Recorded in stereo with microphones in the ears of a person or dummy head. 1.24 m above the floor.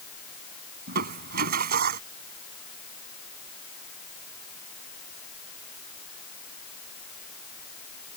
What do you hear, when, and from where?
0.9 s crushing: 55° right (ahead or behind)